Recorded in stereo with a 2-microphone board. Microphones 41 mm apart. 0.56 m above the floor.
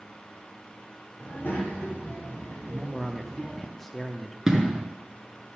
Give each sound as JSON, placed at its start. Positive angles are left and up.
{"t": 1.2, "sound": "a child speaking", "side_deg": 60, "distance_m": 2.5}
{"t": 2.7, "sound": "a man speaking", "side_deg": 10, "distance_m": 0.7}
{"t": 4.5, "sound": "an explosion", "side_deg": -15, "distance_m": 1.6}